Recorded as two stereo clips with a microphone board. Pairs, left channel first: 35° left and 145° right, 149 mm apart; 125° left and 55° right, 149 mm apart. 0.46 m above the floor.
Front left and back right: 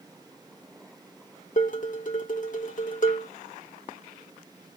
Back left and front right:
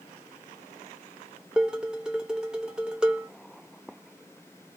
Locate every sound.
1.6 s dishes clattering: 30° left, 0.9 m